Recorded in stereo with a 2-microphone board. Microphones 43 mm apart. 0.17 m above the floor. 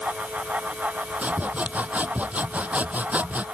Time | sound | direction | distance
1.2 | sawing | 40° right (ahead or behind) | ?